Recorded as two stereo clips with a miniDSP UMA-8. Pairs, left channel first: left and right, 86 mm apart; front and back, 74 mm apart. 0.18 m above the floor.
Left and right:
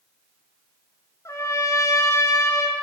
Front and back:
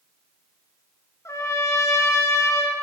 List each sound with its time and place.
1.2 s a trumpet: 40° left, 1.0 m